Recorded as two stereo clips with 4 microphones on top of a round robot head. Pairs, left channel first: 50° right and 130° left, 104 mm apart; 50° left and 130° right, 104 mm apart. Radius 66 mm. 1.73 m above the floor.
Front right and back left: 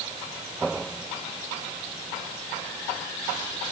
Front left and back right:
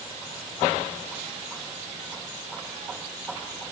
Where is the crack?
I don't hear a crack.